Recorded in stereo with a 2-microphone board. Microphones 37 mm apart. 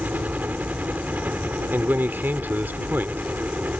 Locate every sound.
0.0 s a helicopter: 55° right (ahead or behind)
1.7 s a man speaking: 70° right (ahead or behind)